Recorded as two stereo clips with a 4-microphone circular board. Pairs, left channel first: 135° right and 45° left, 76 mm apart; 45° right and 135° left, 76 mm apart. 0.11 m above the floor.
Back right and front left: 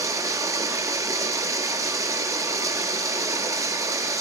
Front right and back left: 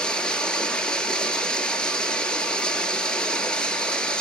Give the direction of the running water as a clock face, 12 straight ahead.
11 o'clock.